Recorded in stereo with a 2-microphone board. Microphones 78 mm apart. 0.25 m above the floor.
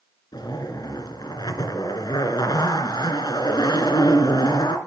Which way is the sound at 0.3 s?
70° left (ahead or behind).